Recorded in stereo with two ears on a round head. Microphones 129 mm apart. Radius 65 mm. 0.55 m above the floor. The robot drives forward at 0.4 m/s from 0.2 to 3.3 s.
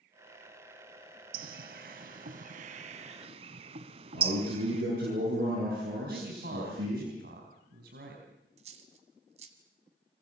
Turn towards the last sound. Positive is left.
turn(degrees=-45)  # may be behind; listen again after turning